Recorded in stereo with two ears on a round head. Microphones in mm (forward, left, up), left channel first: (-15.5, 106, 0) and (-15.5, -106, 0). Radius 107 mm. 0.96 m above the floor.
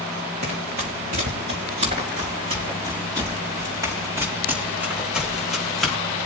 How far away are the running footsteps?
About 5.5 m.